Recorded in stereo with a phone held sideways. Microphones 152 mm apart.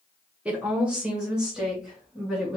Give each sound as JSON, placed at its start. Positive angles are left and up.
{"t": 0.5, "sound": "a woman speaking", "side_deg": -10, "distance_m": 1.1}